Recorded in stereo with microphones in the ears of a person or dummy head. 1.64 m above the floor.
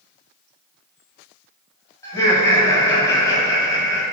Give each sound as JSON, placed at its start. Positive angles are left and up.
{"t": 2.0, "sound": "laughter", "side_deg": 15, "distance_m": 1.0}